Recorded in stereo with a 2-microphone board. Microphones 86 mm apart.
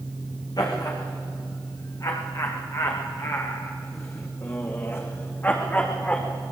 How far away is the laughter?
About 9 m.